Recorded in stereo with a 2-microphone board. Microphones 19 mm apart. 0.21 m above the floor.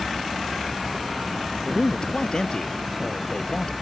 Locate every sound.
1.6 s a man speaking: 45° left (ahead or behind)